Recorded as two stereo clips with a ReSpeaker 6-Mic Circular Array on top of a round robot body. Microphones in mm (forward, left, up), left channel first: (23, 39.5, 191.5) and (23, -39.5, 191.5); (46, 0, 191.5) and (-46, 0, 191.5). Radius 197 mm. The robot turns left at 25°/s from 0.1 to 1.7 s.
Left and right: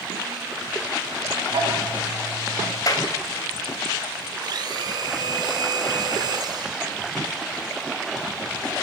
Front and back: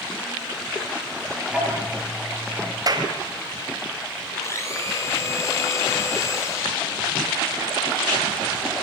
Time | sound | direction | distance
1.5 | ticking | 100° right | 8 m
2.9 | a clap | 135° left | 4.5 m
4.4 | a blender | 60° right | 5 m